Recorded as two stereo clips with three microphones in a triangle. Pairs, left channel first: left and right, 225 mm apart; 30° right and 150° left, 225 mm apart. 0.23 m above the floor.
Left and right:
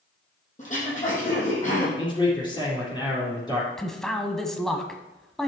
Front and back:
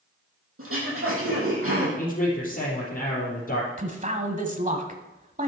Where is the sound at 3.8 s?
175° left, 1.3 m.